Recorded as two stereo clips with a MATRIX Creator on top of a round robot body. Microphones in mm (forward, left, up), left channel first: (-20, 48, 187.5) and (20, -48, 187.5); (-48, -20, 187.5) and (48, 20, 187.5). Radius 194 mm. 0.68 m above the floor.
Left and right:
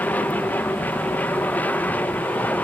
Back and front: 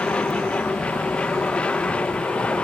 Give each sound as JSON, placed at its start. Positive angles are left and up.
{"t": 0.0, "sound": "an aircraft", "azimuth_deg": 145}